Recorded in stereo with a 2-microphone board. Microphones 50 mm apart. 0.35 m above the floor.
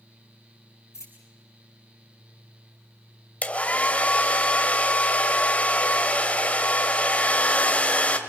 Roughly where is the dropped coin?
Left.